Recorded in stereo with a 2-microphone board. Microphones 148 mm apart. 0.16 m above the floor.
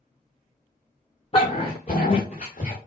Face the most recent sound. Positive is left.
turn(degrees=50)  # may be behind; listen again after turning